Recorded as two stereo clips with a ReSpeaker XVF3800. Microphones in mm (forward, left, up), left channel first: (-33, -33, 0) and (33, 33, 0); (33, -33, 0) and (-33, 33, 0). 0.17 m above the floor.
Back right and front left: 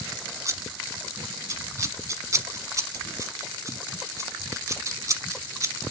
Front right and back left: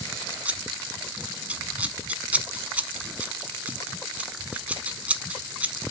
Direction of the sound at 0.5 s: 70° left.